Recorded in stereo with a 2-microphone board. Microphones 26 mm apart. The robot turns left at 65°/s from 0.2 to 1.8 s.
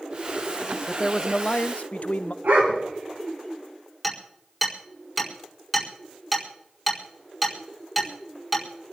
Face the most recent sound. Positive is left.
turn(degrees=-5)  # may be behind; listen again after turning